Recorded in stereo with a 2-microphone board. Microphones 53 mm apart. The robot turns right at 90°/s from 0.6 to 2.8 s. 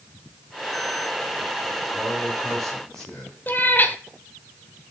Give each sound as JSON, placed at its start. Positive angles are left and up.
{"t": 1.9, "sound": "a man speaking", "azimuth_deg": -55, "distance_m": 8.0}
{"t": 3.5, "sound": "a cat meowing", "side_deg": 35, "distance_m": 0.9}